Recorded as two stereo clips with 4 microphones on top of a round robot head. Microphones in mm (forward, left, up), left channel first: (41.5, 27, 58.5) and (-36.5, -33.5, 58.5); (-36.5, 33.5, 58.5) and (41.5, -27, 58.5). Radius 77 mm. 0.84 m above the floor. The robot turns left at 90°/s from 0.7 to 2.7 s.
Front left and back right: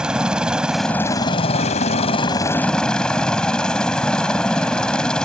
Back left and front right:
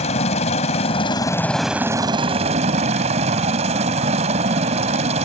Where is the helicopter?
135° left; by 5.3 s 45° right.